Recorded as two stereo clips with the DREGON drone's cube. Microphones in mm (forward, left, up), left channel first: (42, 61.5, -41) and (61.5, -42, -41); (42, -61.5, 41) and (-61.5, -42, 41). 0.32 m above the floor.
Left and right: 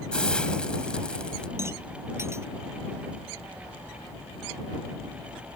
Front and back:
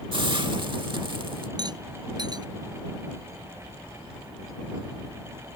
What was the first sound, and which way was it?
A hiss, 175° left.